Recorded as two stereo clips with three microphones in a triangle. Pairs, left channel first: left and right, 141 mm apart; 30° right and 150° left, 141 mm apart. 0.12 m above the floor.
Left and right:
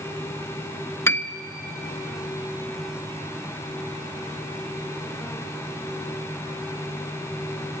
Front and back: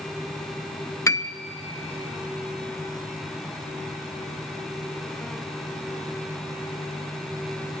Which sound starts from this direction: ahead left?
A piano, at 1.1 s.